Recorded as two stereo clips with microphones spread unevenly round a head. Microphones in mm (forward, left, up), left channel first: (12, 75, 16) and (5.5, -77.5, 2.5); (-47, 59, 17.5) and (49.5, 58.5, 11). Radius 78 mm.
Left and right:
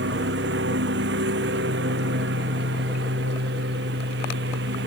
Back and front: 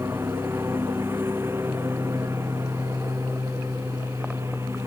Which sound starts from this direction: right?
A lawn mower, at 0.0 s.